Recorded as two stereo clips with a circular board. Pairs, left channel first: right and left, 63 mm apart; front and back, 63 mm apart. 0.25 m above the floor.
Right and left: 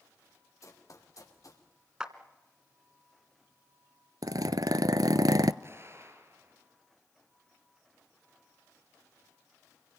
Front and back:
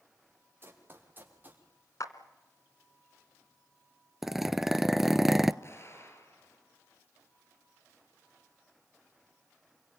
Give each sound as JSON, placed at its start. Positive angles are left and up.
{"t": 0.6, "sound": "running footsteps", "azimuth_deg": -125, "distance_m": 5.5}
{"t": 2.0, "sound": "a clap", "azimuth_deg": 15, "distance_m": 1.8}
{"t": 4.2, "sound": "a zipper", "azimuth_deg": 95, "distance_m": 0.7}
{"t": 5.6, "sound": "an explosion", "azimuth_deg": 45, "distance_m": 4.0}